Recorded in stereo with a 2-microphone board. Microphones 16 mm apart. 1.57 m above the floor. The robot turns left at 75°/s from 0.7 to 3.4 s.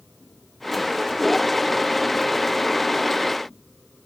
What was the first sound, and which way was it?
Only background noise.